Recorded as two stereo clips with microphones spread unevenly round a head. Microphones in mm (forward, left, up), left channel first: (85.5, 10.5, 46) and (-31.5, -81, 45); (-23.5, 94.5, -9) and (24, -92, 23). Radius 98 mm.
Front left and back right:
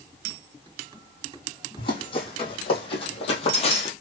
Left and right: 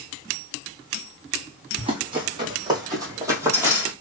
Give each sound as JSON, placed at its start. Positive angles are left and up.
{"t": 1.8, "sound": "running footsteps", "azimuth_deg": -15, "distance_m": 3.0}